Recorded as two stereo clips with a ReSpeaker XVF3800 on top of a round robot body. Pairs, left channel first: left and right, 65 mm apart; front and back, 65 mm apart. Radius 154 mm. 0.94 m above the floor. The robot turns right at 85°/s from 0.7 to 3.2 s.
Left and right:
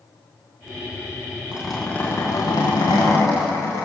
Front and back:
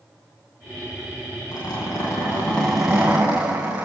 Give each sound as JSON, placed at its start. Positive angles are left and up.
{"t": 1.5, "sound": "a zipper", "azimuth_deg": -15, "distance_m": 6.0}